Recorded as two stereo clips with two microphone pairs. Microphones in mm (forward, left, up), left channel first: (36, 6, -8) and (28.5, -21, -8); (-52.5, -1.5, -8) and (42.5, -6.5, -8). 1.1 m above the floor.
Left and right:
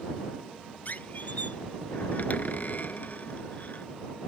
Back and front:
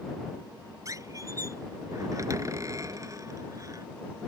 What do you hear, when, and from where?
0.8 s a squeak: 50° left